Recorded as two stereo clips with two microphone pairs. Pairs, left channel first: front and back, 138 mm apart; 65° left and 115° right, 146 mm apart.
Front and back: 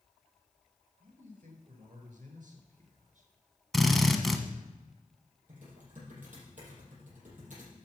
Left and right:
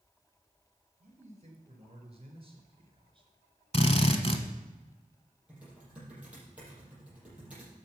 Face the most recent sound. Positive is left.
turn(degrees=160)